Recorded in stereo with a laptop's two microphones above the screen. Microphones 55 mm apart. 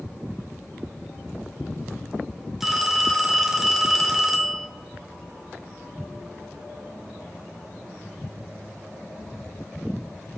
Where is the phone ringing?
5° right (ahead or behind), 1.4 m.